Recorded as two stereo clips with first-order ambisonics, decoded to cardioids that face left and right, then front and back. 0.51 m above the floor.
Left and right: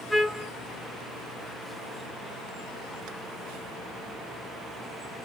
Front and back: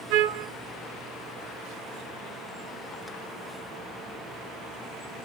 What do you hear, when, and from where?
0.1 s a trumpet: straight behind, 0.6 m